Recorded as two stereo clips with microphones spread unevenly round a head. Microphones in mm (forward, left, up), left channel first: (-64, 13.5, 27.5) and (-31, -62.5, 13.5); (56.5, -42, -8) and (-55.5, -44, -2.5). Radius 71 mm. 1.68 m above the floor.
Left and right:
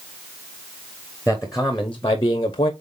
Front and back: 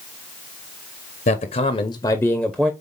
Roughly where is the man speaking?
Ahead.